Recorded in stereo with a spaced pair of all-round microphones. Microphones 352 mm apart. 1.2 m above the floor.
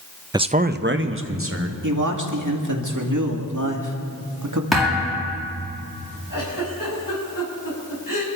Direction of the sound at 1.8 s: 60° right (ahead or behind).